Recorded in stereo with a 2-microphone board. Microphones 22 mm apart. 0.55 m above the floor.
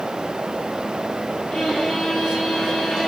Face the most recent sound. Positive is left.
turn(degrees=10)  # may be behind; listen again after turning